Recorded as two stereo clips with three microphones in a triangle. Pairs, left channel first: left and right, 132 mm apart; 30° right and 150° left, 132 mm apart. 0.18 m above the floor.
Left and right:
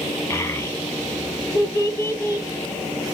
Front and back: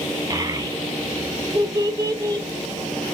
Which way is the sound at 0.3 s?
130° left.